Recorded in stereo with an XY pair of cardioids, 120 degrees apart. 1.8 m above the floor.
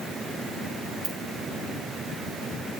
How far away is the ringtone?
About 3 m.